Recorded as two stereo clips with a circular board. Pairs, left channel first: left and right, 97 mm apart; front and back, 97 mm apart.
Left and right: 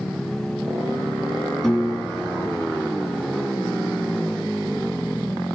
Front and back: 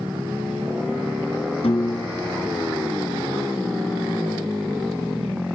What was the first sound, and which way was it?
A piano, 10° left.